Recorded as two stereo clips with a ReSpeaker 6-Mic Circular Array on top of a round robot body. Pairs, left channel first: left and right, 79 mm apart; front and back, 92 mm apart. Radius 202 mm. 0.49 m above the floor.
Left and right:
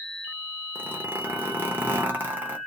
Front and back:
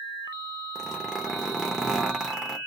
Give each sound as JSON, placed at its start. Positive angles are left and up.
{"t": 0.8, "sound": "a zipper", "azimuth_deg": -105, "distance_m": 1.3}